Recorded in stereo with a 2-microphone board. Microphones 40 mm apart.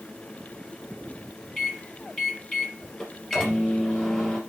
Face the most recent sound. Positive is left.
turn(degrees=15)  # may be behind; listen again after turning